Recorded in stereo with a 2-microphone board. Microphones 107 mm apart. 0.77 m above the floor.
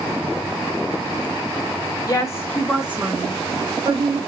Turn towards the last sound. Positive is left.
turn(degrees=-60)  # may be behind; listen again after turning